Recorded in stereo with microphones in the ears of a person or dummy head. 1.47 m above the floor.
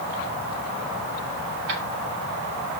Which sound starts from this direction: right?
Keys jangling, at 1.7 s.